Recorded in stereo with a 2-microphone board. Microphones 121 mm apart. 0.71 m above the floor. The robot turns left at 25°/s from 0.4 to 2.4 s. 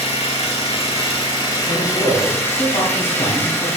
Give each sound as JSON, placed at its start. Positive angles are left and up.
{"t": 0.0, "sound": "an engine running", "azimuth_deg": 75, "distance_m": 1.4}
{"t": 1.7, "sound": "a man speaking", "side_deg": 55, "distance_m": 2.0}